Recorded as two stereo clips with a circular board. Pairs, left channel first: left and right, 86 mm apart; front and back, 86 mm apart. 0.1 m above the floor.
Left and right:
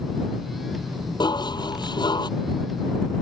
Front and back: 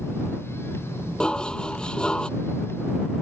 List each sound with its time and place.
1.2 s dishes clattering: 80° left